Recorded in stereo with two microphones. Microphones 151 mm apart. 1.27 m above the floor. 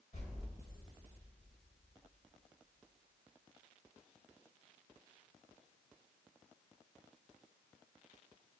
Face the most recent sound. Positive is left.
turn(degrees=50)  # may be behind; listen again after turning